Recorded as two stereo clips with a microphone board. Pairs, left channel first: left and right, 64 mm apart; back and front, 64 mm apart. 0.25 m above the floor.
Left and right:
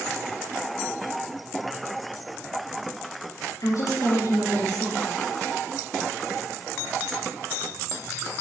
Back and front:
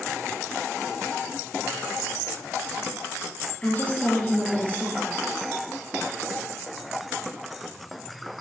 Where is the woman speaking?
110° left, 5.5 m.